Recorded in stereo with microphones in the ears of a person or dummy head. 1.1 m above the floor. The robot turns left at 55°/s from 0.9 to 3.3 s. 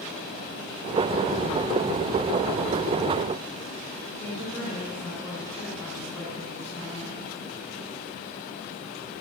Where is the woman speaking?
10° left (ahead or behind), 5.5 m.